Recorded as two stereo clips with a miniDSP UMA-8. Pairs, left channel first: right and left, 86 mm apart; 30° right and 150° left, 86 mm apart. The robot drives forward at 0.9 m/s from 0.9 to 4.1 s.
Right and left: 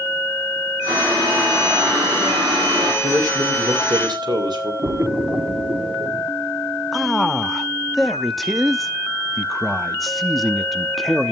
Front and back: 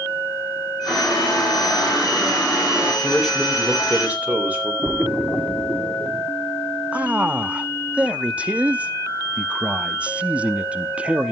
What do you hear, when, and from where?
0.9 s boiling: 60° left, 5 m; by 2.9 s 80° left, 4.5 m
3.0 s a man speaking: 60° left, 3 m; by 4.7 s 80° left, 2.5 m
4.8 s a splash: 80° left, 1.4 m
6.9 s a man speaking: straight behind, 0.6 m